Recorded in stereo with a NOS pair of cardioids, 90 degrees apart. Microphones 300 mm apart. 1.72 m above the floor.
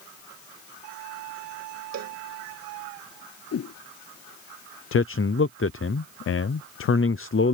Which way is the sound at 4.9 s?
45° left.